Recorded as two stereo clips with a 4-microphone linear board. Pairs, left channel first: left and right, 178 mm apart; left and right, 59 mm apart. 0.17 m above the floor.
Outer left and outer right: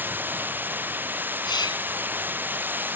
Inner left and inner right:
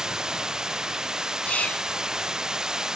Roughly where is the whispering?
Left.